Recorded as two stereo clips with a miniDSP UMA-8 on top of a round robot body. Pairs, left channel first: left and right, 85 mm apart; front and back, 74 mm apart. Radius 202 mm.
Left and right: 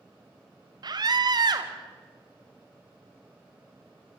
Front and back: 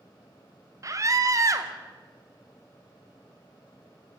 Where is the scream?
130° right, 2 m.